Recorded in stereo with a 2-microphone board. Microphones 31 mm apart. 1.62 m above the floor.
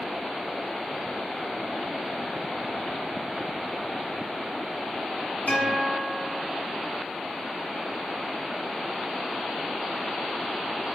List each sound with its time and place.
5.5 s a guitar: 65° left (ahead or behind), 1.5 m